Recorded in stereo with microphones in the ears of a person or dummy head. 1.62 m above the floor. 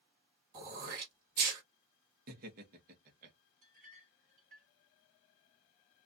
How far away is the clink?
About 1.4 m.